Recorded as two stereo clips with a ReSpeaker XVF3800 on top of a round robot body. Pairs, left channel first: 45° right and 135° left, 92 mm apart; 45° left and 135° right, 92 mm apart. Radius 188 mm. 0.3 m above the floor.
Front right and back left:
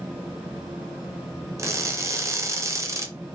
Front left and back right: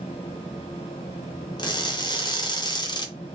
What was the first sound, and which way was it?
Crushing, 80° left.